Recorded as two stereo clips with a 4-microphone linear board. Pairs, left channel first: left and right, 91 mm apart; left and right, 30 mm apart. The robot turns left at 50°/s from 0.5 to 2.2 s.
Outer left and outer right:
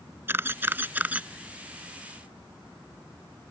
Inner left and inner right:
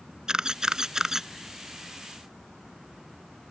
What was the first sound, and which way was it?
A camera shutter, 25° right (ahead or behind).